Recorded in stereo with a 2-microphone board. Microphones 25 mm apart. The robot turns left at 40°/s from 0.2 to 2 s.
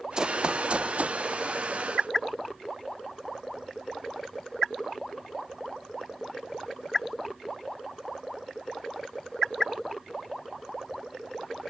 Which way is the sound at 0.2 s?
30° right (ahead or behind).